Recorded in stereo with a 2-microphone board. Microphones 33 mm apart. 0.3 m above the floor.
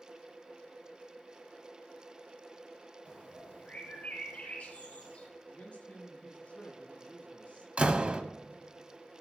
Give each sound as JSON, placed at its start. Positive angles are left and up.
{"t": 3.0, "sound": "a bird", "side_deg": 45, "distance_m": 3.5}
{"t": 5.5, "sound": "a man speaking", "side_deg": 45, "distance_m": 5.5}
{"t": 7.8, "sound": "a door slam", "side_deg": -40, "distance_m": 1.1}